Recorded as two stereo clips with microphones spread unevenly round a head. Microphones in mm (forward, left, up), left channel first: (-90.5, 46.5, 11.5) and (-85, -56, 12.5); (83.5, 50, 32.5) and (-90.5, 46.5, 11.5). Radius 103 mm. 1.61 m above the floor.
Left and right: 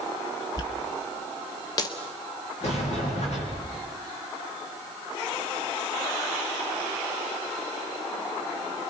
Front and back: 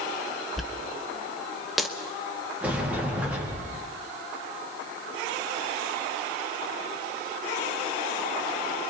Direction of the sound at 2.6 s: 100° left.